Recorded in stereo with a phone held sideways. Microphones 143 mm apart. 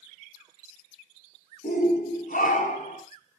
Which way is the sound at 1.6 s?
75° left (ahead or behind).